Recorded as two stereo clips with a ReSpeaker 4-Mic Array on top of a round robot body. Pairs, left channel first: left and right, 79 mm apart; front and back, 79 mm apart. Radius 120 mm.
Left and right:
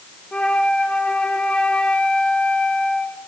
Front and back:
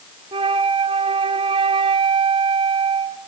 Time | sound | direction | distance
0.3 | a flute | 170° left | 0.8 m